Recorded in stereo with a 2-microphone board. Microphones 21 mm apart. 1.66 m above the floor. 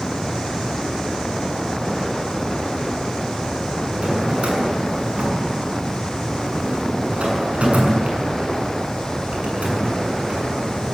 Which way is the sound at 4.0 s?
70° right (ahead or behind).